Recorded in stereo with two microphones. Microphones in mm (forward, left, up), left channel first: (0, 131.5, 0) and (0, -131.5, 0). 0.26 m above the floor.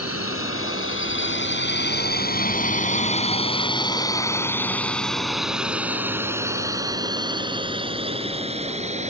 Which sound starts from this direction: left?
A drone, at 0.0 s.